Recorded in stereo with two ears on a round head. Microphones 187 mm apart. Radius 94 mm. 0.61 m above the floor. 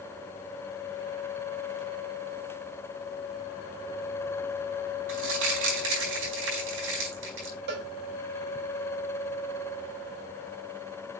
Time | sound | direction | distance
5.1 | crumpling | 65° right (ahead or behind) | 4.5 m
7.7 | a cowbell | 55° right (ahead or behind) | 2.0 m